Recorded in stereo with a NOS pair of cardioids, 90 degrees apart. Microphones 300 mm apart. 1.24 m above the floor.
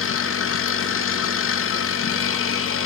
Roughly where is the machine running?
Ahead left.